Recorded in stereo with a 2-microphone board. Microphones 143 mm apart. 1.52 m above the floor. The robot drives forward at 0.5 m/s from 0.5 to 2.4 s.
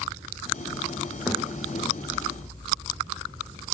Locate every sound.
1.3 s a thud: 5° right (ahead or behind), 8.5 m